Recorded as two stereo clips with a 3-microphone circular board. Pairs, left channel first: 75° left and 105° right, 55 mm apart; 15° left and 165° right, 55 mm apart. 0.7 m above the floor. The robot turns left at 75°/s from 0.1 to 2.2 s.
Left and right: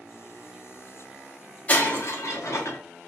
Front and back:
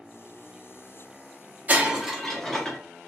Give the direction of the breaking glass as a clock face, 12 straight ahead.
7 o'clock.